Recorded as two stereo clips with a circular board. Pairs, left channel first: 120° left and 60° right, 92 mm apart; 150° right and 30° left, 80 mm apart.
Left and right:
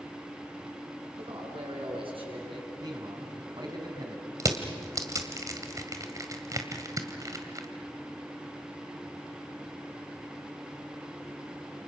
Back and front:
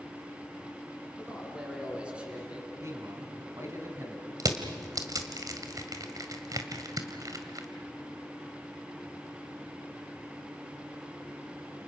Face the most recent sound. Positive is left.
turn(degrees=-10)